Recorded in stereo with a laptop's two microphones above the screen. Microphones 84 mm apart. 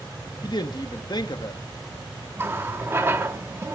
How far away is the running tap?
About 1.0 m.